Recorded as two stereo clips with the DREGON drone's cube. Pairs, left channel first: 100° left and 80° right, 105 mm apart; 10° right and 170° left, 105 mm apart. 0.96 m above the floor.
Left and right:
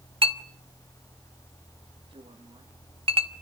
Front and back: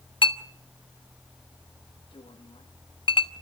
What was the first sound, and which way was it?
A clink, 50° right.